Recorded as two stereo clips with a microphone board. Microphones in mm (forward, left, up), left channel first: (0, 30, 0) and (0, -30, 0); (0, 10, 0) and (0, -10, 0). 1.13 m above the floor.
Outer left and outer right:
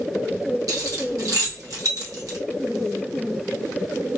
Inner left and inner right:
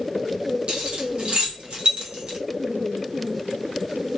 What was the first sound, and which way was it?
Keys jangling, 70° right (ahead or behind).